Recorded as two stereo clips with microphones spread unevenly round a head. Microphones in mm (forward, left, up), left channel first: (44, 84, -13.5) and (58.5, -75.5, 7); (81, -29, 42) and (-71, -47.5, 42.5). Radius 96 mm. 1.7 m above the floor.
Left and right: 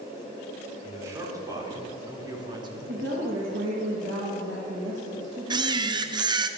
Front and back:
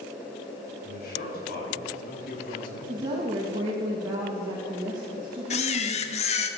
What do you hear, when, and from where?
0.8 s a man speaking: 15° right, 5 m; by 2.8 s 25° right, 3 m
2.9 s a woman speaking: 105° right, 3 m
5.5 s a camera shutter: 30° right, 1.2 m